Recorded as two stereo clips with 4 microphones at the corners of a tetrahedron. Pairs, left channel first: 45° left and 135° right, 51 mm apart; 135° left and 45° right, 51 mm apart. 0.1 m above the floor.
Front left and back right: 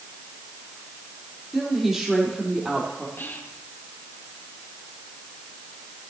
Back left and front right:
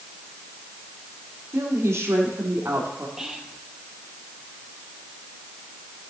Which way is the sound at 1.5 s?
45° right.